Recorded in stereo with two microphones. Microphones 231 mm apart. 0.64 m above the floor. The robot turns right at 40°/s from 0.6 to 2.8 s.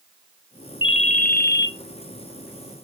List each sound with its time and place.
0.8 s a ringtone: 25° left, 0.6 m; by 1.7 s 60° left, 0.6 m